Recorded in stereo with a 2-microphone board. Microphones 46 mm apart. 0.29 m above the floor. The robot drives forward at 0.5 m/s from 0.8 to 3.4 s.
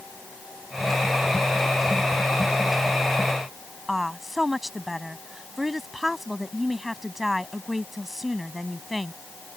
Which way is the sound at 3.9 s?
5° right (ahead or behind).